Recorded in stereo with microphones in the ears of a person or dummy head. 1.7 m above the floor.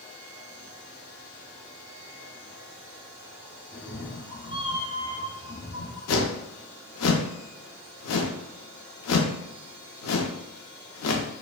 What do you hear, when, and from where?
3.7 s a cat meowing: 5° left (ahead or behind), 1.3 m; by 6.0 s 45° left (ahead or behind), 2 m
6.1 s a whoosh: 85° left, 0.6 m